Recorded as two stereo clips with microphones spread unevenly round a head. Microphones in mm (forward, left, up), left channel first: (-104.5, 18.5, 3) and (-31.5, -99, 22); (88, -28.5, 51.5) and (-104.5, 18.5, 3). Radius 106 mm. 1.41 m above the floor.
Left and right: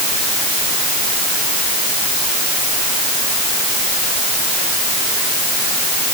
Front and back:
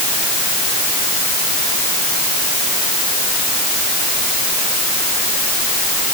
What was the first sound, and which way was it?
Only background noise.